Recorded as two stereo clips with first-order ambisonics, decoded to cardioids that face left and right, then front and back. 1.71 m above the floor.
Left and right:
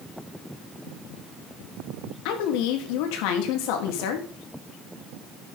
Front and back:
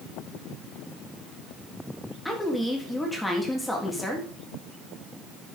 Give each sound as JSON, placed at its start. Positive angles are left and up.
{"t": 2.2, "sound": "a woman speaking", "azimuth_deg": 85, "distance_m": 3.5}